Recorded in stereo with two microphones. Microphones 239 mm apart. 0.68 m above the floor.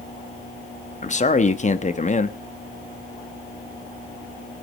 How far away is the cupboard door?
I don't hear a cupboard door.